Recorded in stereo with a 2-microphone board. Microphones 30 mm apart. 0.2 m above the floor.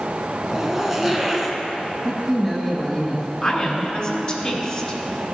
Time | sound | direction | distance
0.5 | a zipper | 10° right (ahead or behind) | 0.9 m
2.0 | a man speaking | 5° left (ahead or behind) | 1.2 m
3.4 | a woman speaking | 30° left (ahead or behind) | 1.3 m